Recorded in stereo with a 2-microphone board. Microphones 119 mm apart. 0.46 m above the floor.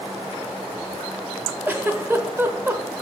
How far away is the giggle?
About 0.7 m.